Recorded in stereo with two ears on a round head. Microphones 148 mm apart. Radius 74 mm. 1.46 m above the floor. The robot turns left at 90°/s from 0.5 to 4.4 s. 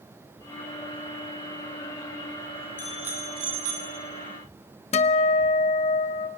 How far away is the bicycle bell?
About 3 m.